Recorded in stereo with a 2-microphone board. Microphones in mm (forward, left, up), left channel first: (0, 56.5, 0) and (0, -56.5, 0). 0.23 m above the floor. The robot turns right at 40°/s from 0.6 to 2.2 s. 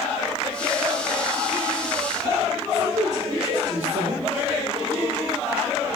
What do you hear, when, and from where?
2.7 s a woman speaking: 75° right (ahead or behind), 6 m